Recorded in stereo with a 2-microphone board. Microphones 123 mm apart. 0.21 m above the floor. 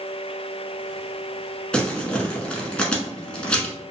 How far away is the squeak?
I don't hear a squeak.